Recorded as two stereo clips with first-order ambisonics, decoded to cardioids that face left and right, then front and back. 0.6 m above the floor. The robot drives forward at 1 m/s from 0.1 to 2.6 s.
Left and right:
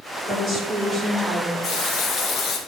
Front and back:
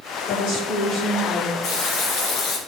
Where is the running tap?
25° left, 3.5 m; by 2.6 s 35° left, 2.5 m.